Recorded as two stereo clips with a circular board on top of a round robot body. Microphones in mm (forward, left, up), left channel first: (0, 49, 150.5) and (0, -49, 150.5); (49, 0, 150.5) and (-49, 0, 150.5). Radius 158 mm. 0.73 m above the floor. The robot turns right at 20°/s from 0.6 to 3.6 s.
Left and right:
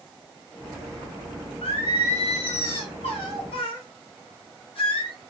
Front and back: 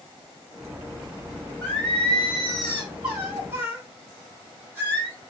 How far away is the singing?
About 2 m.